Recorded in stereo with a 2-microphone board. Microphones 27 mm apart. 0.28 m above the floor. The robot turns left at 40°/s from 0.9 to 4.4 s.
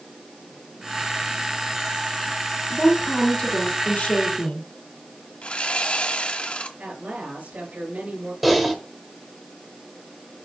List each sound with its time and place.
2.7 s a woman speaking: 145° left, 3 m; by 4.7 s 80° left, 3 m
5.4 s sawing: 50° left (ahead or behind), 1.2 m
6.8 s a woman speaking: 75° right (ahead or behind), 4.5 m
8.4 s typing on a keyboard: 5° right (ahead or behind), 1.6 m